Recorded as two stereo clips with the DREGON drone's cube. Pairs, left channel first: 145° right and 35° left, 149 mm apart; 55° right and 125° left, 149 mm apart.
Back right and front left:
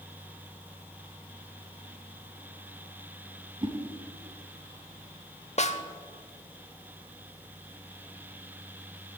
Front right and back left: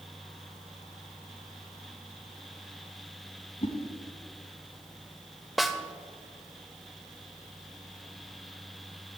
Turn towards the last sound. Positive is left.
turn(degrees=-145)